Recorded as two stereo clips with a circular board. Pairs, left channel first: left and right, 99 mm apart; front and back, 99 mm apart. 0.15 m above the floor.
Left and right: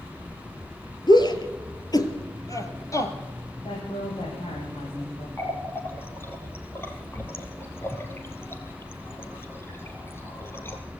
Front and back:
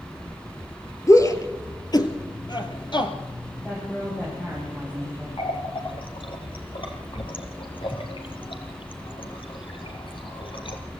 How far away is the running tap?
About 3 m.